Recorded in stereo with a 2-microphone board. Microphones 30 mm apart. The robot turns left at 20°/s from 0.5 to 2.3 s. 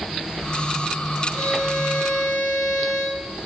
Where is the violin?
80° left, 8.5 m; by 3.3 s 65° left (ahead or behind), 8.5 m.